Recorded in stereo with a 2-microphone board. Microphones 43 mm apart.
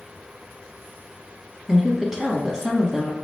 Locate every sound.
1.7 s a woman speaking: 15° right (ahead or behind), 1.0 m